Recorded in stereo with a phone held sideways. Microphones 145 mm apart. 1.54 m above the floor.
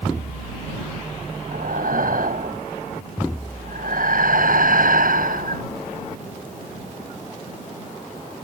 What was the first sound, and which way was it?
Breathing, 75° right (ahead or behind).